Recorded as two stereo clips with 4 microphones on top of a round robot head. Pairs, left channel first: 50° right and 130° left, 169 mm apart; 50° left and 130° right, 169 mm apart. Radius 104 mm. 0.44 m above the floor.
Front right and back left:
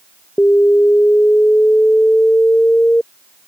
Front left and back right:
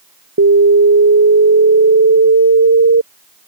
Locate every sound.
0.4 s an alarm: 135° right